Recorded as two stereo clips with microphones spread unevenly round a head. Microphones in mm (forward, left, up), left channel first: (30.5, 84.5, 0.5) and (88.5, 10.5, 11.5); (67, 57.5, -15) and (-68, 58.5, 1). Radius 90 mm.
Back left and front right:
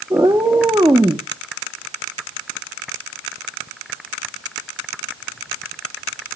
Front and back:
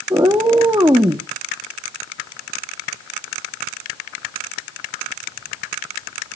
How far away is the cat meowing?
About 0.7 m.